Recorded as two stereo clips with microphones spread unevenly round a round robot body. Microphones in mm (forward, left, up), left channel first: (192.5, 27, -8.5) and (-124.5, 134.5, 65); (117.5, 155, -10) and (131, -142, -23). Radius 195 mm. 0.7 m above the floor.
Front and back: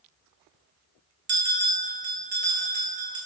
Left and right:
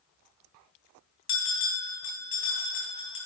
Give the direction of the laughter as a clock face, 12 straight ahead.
I don't hear laughter.